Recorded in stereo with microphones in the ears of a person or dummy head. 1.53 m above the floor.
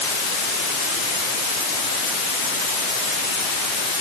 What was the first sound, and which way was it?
Only background noise.